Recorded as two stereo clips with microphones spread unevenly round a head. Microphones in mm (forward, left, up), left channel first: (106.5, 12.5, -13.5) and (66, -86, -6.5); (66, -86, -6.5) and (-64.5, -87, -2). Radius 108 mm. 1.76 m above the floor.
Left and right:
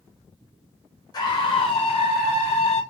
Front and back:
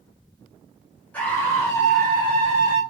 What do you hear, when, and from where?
1.1 s a scream: 75° left, 0.8 m; by 2.8 s 55° left, 1.4 m